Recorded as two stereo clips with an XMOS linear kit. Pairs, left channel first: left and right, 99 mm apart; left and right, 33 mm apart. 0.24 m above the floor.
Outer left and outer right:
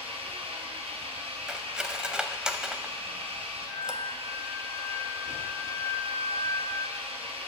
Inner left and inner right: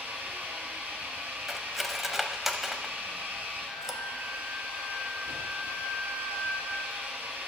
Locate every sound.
0.0 s an engine running: 80° right, 1.7 m
1.5 s cutlery clinking: 10° right (ahead or behind), 0.5 m
3.7 s a flute: 25° left (ahead or behind), 1.5 m